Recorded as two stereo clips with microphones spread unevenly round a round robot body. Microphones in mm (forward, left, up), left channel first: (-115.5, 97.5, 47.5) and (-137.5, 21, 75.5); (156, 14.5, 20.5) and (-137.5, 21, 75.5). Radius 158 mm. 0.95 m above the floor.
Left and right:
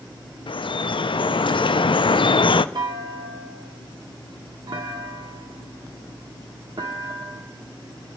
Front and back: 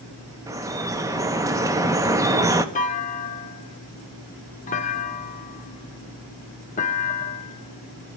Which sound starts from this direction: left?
Dripping, at 0.5 s.